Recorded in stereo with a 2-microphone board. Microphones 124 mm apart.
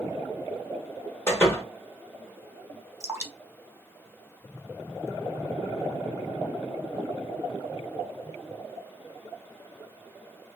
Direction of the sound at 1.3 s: 20° left (ahead or behind).